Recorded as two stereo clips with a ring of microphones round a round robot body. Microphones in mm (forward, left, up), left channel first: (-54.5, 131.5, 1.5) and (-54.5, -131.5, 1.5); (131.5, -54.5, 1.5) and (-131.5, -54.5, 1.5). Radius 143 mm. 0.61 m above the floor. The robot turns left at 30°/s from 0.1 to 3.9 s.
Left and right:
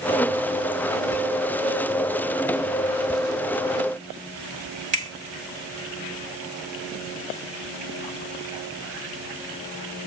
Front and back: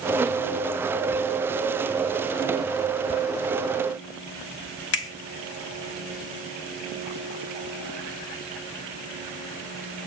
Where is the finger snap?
30° right, 1.4 m.